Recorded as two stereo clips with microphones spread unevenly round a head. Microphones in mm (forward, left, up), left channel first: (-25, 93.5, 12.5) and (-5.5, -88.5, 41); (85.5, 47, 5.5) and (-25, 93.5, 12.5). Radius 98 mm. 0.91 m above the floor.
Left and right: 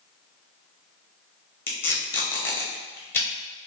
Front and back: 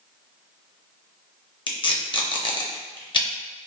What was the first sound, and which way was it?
Tape being pulled, 20° left.